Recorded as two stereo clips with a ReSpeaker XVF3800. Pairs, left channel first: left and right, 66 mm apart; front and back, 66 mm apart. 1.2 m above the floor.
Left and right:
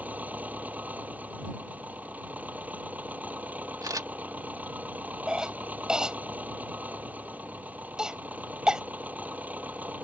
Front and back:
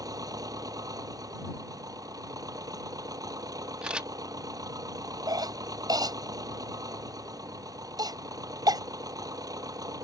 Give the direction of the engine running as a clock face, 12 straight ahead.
5 o'clock.